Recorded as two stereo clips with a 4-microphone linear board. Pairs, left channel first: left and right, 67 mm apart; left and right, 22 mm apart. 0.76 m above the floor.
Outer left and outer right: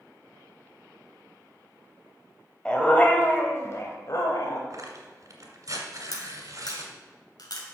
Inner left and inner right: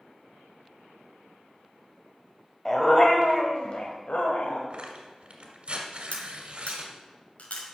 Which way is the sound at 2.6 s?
15° left (ahead or behind).